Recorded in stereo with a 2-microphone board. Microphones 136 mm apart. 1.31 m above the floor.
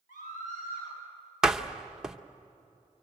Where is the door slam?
5° right (ahead or behind), 0.9 m.